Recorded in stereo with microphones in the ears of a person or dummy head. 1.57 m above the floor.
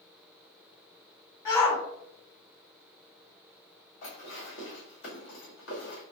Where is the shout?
15° left (ahead or behind), 1.8 m.